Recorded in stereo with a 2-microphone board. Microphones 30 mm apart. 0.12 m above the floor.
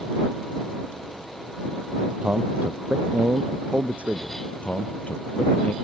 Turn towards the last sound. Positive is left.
turn(degrees=50)  # may be behind; listen again after turning